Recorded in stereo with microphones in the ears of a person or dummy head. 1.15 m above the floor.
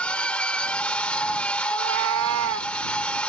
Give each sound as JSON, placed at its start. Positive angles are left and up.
{"t": 0.0, "sound": "a machine running", "side_deg": 10}
{"t": 1.7, "sound": "a cat meowing", "side_deg": -60}